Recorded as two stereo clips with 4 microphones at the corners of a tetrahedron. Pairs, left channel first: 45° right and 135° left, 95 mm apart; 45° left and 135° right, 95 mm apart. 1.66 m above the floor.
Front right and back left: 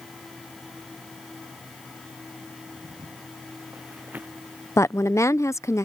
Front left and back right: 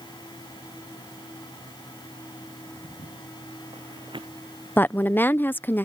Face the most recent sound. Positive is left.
turn(degrees=-5)